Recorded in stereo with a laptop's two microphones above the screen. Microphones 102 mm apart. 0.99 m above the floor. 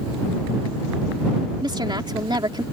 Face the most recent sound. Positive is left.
turn(degrees=-45)  # may be behind; listen again after turning